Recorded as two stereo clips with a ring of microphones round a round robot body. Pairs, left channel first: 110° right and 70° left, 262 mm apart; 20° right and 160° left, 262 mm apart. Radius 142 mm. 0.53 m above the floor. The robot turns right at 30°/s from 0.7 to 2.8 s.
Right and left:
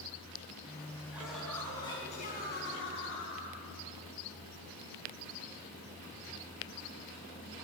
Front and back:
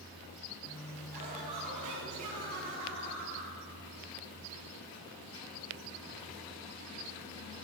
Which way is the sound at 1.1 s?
150° left.